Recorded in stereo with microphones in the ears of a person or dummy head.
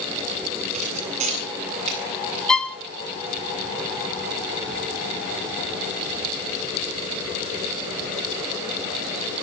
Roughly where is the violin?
Centre.